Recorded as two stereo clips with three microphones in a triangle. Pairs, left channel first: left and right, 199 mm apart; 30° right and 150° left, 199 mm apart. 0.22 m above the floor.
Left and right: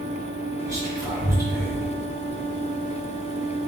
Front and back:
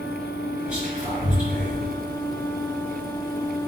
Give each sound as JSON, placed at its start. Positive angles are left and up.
{"t": 0.7, "sound": "whispering", "azimuth_deg": -135, "distance_m": 1.6}